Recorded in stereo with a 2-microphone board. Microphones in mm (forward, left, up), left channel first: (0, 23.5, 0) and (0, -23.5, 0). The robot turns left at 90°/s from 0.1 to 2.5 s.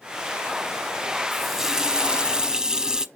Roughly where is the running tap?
Centre.